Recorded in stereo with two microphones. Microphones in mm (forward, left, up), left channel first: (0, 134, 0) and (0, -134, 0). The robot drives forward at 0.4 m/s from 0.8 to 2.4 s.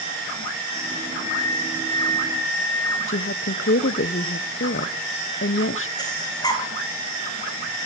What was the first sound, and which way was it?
A flute, 25° right (ahead or behind).